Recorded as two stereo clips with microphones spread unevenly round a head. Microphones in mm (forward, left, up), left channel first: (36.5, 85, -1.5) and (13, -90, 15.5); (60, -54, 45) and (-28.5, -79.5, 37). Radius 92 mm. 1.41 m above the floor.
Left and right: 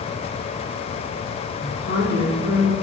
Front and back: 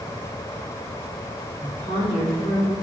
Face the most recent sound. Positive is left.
turn(degrees=50)